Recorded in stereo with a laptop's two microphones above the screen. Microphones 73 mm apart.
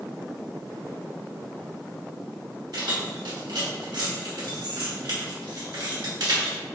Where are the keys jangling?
65° right (ahead or behind), 2.0 m.